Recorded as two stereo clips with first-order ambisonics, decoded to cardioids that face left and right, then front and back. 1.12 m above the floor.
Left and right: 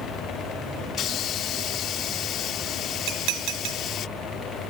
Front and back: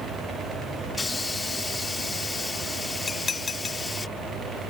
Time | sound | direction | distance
0.9 | a hiss | 75° left | ?
3.1 | dishes clattering | 70° right | ?